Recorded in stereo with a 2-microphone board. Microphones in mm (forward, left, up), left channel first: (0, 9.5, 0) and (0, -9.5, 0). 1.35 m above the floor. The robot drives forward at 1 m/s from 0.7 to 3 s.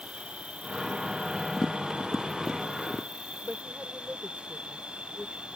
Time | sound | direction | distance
0.0 | an insect | 75° right (ahead or behind) | ?
1.6 | tapping | 35° left (ahead or behind) | ?
3.4 | a woman speaking | 75° right (ahead or behind) | ?